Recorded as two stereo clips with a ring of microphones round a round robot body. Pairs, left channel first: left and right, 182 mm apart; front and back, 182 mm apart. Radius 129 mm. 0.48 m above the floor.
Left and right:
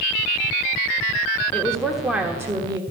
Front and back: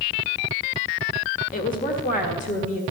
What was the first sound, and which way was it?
A woman speaking, 10° left.